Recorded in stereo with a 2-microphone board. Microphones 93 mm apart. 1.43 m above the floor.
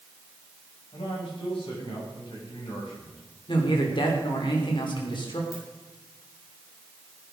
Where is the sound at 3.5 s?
60° left (ahead or behind), 3.5 m.